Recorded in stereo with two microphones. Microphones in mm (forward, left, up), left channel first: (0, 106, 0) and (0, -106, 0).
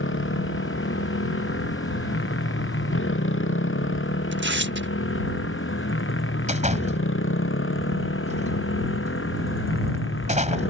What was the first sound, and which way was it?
A motorcycle, 65° left (ahead or behind).